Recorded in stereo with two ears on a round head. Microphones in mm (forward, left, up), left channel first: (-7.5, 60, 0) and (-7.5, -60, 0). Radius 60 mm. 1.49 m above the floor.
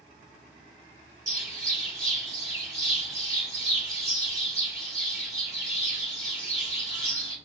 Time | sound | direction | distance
1.3 | a bird | 25° right (ahead or behind) | 1.3 m